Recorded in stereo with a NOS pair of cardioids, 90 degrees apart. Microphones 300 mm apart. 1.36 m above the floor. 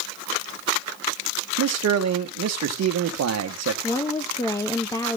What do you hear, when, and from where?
1.6 s a man speaking: 60° right, 1.7 m
3.8 s a woman speaking: 10° left, 1.1 m